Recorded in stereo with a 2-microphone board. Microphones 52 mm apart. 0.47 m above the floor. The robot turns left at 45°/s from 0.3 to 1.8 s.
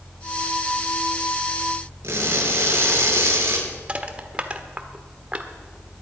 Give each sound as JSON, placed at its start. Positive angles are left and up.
{"t": 2.0, "sound": "crushing", "side_deg": -55, "distance_m": 6.0}
{"t": 3.9, "sound": "crushing", "side_deg": -25, "distance_m": 1.3}